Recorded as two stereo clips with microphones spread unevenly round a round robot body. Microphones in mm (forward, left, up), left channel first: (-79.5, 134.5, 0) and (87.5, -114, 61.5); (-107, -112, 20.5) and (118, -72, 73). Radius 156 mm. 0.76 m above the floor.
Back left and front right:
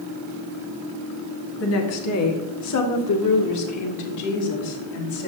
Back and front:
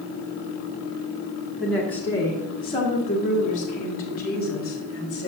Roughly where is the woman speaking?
Left.